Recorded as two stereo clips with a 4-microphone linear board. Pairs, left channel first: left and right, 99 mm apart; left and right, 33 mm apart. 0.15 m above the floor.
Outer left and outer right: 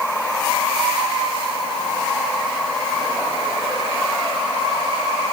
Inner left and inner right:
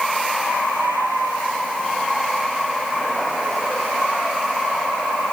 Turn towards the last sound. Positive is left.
No sound to turn to.